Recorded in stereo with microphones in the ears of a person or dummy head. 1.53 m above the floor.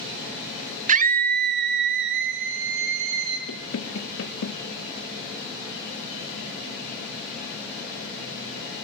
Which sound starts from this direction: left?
Knocking, at 3.5 s.